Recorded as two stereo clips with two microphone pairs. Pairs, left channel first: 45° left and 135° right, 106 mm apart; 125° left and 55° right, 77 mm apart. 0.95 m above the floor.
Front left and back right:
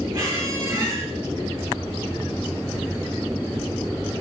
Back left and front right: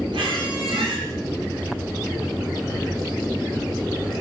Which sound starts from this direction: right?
A squeak, at 0.1 s.